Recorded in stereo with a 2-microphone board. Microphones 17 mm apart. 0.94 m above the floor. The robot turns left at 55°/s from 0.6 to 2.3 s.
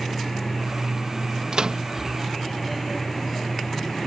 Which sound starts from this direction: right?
A microwave, at 1.5 s.